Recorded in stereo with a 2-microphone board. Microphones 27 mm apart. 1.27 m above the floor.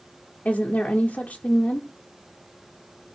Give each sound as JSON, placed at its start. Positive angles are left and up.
{"t": 0.5, "sound": "a woman speaking", "side_deg": 55, "distance_m": 0.7}